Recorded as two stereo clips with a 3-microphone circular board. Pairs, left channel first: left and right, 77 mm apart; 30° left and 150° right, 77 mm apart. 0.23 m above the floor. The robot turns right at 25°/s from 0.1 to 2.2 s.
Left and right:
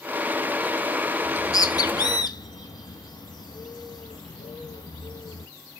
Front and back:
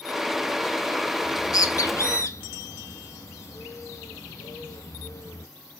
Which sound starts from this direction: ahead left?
A bird, at 1.2 s.